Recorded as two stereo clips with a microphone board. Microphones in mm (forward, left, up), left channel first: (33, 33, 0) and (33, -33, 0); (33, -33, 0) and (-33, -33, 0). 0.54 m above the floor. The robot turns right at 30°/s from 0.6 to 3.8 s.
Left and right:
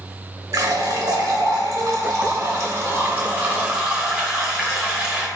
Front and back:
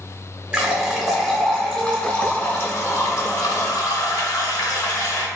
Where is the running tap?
105° right, 0.8 m; by 5.3 s 10° right, 0.8 m.